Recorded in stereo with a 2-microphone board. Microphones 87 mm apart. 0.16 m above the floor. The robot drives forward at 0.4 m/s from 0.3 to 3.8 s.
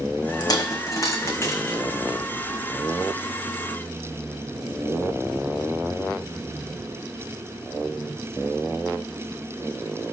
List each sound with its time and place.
0.4 s a dropped coin: 50° left (ahead or behind), 0.8 m; by 1.8 s 30° left (ahead or behind), 1.2 m